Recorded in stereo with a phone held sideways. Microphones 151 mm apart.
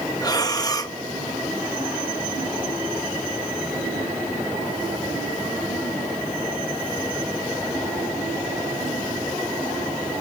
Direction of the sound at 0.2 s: 25° left (ahead or behind).